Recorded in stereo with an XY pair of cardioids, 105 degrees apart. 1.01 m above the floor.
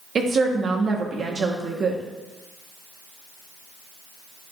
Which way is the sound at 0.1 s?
45° right.